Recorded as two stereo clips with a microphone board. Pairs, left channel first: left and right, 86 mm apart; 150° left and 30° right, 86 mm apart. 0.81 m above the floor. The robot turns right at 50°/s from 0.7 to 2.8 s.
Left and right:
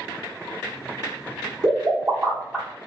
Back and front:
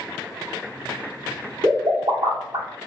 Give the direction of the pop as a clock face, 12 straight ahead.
2 o'clock.